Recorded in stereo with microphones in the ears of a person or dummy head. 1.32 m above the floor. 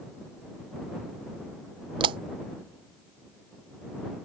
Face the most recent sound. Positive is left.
turn(degrees=-35)  # may be behind; listen again after turning